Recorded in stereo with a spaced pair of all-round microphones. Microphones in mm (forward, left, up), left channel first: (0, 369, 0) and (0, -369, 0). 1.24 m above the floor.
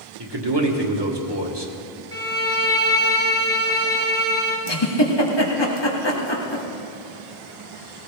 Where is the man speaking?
35° right (ahead or behind), 1.9 m.